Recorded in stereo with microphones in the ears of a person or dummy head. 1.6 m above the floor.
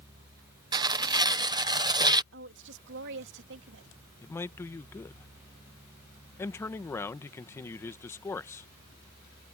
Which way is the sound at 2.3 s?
65° right (ahead or behind).